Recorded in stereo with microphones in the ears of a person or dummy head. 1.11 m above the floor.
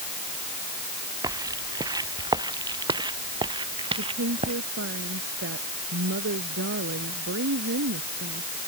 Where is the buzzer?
No buzzer in this recording.